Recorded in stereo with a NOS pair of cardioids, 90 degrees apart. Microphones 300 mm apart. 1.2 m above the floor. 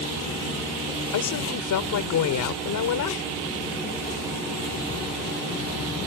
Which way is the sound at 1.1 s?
70° left.